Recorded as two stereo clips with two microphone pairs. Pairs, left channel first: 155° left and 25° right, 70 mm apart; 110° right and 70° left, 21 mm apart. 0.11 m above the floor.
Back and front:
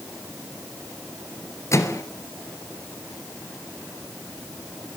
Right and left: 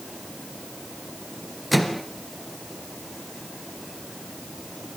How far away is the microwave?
About 2.0 m.